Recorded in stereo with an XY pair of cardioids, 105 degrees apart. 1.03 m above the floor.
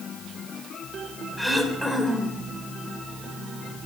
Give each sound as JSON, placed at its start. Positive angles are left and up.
{"t": 1.4, "sound": "throat clearing", "azimuth_deg": 0, "distance_m": 3.0}